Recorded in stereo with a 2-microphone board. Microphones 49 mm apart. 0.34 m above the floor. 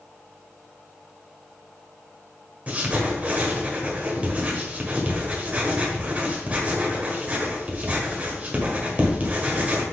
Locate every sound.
2.7 s writing: 30° right (ahead or behind), 1.6 m